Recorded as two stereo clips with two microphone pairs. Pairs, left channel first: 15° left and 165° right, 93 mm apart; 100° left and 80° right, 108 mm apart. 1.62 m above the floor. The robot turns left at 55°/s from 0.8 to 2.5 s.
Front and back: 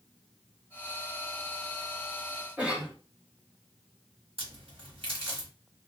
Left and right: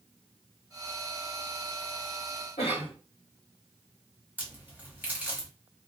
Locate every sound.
2.6 s a cough: 120° left, 1.3 m
4.4 s a crack: 155° right, 1.0 m